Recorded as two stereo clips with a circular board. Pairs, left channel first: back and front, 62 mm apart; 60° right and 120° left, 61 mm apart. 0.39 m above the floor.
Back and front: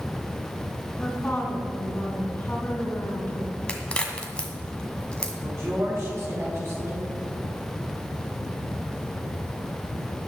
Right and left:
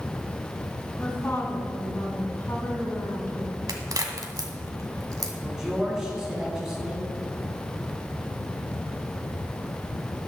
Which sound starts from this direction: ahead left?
A man speaking, at 5.4 s.